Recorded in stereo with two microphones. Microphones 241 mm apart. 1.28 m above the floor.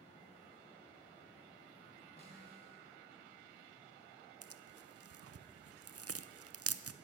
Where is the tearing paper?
75° right (ahead or behind), 0.6 m.